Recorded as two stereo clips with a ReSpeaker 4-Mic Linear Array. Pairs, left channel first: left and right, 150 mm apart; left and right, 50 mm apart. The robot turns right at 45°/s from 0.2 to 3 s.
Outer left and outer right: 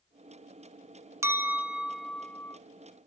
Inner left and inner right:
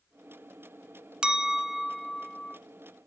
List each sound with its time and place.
1.2 s a clink: 35° right, 0.5 m; by 2.6 s 25° left, 0.5 m